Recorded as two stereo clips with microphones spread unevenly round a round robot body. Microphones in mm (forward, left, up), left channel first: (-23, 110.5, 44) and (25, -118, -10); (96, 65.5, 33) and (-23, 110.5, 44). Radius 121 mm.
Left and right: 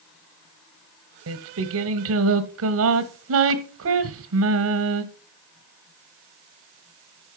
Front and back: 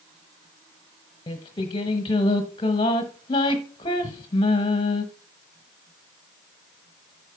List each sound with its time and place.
1.3 s singing: 80° right, 0.9 m